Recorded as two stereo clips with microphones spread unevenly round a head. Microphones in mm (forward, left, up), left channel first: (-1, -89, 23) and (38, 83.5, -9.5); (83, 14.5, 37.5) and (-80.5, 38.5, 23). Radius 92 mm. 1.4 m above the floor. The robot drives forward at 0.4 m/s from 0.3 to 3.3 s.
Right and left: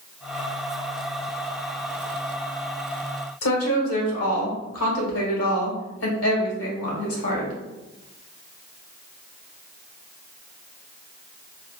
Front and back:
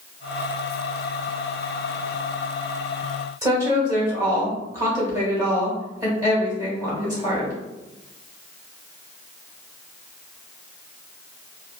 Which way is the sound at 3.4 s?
120° right.